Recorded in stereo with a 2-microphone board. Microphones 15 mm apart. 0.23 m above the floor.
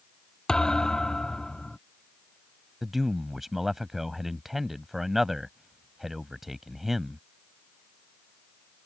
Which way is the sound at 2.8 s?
20° right (ahead or behind).